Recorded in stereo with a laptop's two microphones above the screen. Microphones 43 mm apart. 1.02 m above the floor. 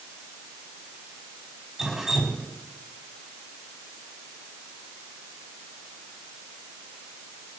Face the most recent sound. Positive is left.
turn(degrees=-15)  # may be behind; listen again after turning